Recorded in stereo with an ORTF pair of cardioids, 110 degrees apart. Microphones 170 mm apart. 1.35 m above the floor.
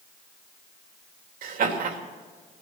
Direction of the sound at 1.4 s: 55° right.